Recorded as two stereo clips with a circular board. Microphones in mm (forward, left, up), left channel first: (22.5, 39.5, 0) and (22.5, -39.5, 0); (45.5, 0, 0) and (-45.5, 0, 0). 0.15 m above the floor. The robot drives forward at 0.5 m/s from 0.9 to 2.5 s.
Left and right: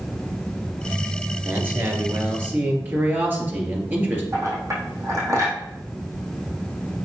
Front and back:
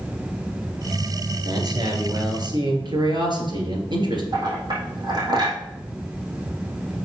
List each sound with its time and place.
1.4 s a man speaking: 145° right, 2 m; by 4.2 s 155° right, 2.5 m
4.3 s a clink: 140° right, 3.5 m